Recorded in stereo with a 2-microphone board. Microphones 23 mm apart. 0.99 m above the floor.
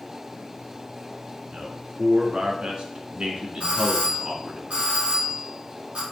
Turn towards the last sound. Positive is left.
turn(degrees=-70)  # may be behind; listen again after turning